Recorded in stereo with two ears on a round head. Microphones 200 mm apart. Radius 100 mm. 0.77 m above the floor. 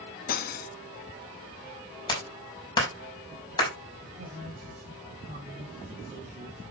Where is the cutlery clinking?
40° left (ahead or behind), 0.6 m.